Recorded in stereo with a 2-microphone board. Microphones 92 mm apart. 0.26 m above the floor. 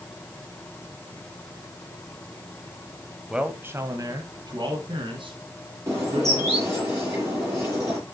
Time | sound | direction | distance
3.3 | a man speaking | 5° right (ahead or behind) | 1.1 m
5.9 | a bird | 30° right (ahead or behind) | 6 m